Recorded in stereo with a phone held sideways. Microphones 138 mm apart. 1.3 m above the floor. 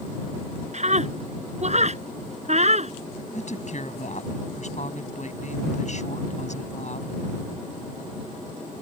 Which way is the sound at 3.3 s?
60° left (ahead or behind).